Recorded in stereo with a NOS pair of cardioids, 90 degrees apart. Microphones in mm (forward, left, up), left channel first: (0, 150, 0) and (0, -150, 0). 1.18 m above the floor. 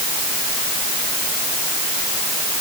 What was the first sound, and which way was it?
Only background noise.